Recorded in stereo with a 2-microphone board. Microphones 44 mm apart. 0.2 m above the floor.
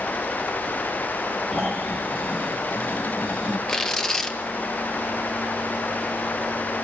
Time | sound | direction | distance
1.5 | snoring | 20° left (ahead or behind) | 5 m
3.7 | tearing paper | 10° left (ahead or behind) | 1.4 m